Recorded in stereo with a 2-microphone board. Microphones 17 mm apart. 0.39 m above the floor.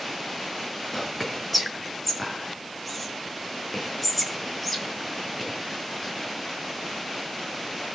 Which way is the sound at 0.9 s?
5° left (ahead or behind).